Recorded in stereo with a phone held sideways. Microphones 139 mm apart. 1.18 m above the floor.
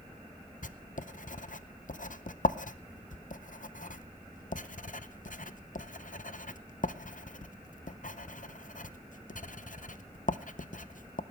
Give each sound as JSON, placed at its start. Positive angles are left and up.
{"t": 0.6, "sound": "writing", "side_deg": 70, "distance_m": 0.6}